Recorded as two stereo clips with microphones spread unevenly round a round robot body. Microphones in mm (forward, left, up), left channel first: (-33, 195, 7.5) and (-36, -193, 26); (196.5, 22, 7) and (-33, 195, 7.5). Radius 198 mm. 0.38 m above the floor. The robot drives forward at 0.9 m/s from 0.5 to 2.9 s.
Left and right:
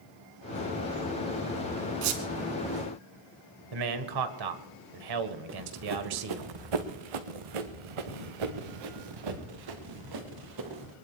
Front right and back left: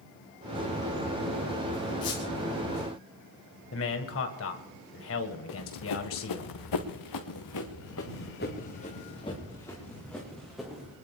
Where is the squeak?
100° right, 3 m; by 2.2 s 105° right, 3 m.